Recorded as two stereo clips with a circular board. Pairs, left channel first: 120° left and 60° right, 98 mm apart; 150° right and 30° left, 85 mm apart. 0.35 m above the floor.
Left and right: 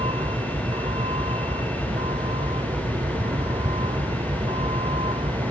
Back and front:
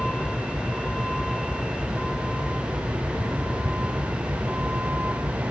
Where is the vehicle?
65° right; by 5.5 s 40° right.